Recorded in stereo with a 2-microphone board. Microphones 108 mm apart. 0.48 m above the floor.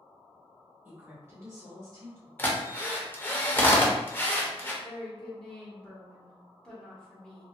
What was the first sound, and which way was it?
A woman speaking, 20° right (ahead or behind).